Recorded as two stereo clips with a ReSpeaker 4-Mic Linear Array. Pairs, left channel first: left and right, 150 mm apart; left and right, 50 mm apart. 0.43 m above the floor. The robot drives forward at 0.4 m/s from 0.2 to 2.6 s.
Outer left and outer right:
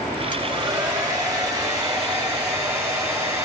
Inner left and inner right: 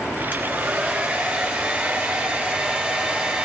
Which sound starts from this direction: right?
A hair dryer, at 0.3 s.